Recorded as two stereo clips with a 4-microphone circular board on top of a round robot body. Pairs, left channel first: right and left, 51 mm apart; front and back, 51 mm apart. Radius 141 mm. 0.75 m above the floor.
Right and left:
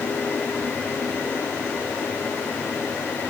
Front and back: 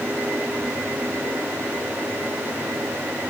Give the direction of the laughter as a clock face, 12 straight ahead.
No laughter in this recording.